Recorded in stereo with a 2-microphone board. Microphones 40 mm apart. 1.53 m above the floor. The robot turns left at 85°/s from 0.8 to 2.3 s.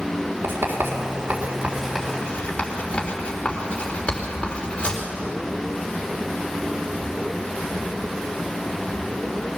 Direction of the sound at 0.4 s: 80° right.